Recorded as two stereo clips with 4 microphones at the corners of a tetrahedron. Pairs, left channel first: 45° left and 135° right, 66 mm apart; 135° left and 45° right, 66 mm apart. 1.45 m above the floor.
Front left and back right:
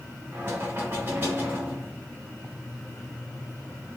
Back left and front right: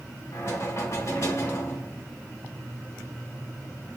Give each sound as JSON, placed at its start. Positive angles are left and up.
{"t": 0.3, "sound": "knocking", "azimuth_deg": 170, "distance_m": 2.0}